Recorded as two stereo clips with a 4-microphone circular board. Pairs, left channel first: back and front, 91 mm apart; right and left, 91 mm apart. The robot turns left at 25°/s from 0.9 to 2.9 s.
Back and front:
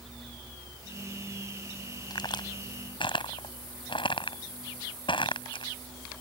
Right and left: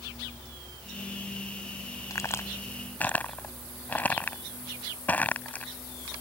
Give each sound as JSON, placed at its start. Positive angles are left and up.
{"t": 2.1, "sound": "a crack", "azimuth_deg": -140}